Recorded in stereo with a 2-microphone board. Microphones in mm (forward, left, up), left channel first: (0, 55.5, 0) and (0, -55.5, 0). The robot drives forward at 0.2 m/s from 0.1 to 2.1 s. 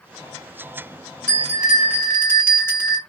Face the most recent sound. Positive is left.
turn(degrees=20)  # may be behind; listen again after turning